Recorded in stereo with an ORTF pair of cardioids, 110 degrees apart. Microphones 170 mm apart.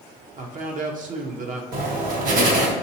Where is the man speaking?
50° right, 0.8 m.